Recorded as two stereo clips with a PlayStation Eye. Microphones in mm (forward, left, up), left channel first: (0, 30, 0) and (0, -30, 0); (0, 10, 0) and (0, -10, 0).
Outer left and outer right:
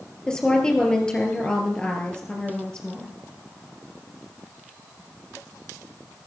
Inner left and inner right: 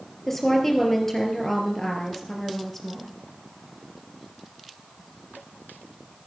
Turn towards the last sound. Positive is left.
turn(degrees=15)  # may be behind; listen again after turning